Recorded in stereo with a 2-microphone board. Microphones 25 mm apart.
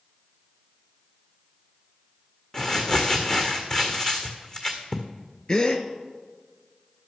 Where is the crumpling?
25° left (ahead or behind), 1.5 m.